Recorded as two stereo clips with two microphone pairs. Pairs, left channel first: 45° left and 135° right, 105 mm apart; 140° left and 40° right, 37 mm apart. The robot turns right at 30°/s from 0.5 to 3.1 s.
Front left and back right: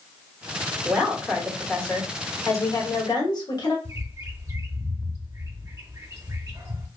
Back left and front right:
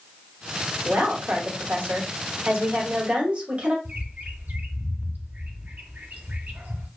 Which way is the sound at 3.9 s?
75° right.